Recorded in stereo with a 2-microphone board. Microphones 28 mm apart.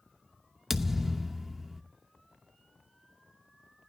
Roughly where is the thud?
Centre.